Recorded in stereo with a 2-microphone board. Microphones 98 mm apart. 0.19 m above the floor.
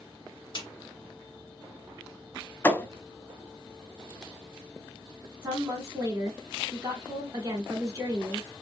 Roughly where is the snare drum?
Left.